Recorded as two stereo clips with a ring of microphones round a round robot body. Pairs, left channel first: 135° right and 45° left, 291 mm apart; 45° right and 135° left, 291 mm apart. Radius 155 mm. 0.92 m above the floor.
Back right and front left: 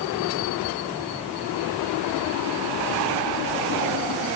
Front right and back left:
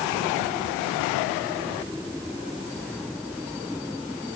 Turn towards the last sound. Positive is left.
No sound to turn to.